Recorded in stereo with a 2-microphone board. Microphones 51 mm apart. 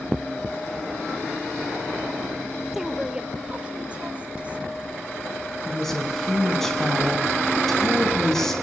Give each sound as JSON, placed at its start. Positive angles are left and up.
{"t": 2.7, "sound": "a woman speaking", "side_deg": -5, "distance_m": 1.0}
{"t": 5.7, "sound": "a woman speaking", "side_deg": 5, "distance_m": 5.0}